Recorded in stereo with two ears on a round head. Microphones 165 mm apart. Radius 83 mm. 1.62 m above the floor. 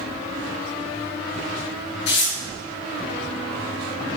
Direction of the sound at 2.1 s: 70° left (ahead or behind).